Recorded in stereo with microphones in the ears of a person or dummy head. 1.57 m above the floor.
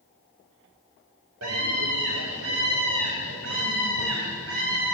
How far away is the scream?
About 5.5 m.